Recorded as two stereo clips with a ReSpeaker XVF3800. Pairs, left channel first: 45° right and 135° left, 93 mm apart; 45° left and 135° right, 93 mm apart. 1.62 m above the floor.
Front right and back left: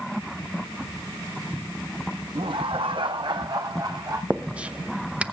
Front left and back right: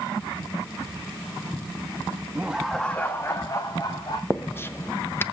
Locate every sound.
2.4 s laughter: 155° left, 1.0 m; by 4.2 s 85° left, 2 m
4.3 s writing: 75° left, 0.7 m